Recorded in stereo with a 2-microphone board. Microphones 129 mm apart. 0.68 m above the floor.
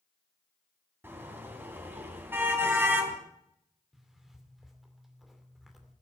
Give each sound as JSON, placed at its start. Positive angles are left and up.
{"t": 1.0, "sound": "a car horn", "side_deg": -15, "distance_m": 3.0}
{"t": 3.9, "sound": "a zipper", "side_deg": 0, "distance_m": 2.5}